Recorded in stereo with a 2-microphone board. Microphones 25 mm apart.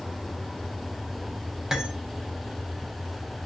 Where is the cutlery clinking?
20° right (ahead or behind), 0.5 m.